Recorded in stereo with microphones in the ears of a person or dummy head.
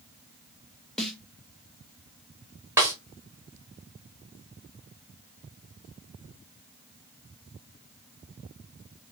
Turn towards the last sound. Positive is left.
turn(degrees=-10)  # may be behind; listen again after turning